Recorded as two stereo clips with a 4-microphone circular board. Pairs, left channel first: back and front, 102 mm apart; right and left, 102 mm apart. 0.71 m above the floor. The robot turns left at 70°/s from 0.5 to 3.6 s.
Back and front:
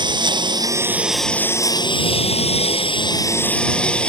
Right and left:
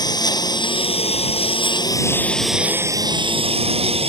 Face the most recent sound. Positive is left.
turn(degrees=100)